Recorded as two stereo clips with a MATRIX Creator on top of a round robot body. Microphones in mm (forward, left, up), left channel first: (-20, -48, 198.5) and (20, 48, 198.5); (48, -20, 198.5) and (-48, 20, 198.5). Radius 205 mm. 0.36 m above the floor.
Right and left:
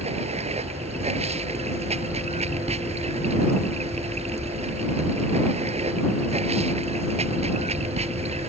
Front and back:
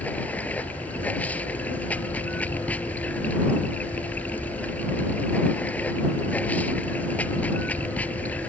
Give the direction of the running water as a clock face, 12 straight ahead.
10 o'clock.